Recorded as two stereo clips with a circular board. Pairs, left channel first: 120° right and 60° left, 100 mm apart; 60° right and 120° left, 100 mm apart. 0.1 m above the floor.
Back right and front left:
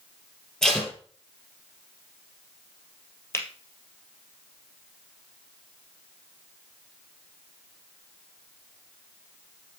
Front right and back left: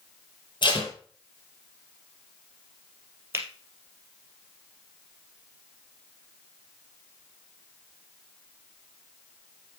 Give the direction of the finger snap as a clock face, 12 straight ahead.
6 o'clock.